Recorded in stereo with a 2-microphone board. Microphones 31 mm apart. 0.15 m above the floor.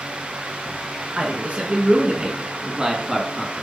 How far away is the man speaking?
About 2.5 m.